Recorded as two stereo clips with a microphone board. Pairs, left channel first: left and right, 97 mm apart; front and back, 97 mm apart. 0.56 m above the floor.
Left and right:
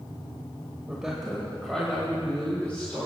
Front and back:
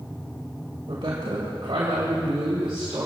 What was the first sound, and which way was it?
A woman speaking, 170° right.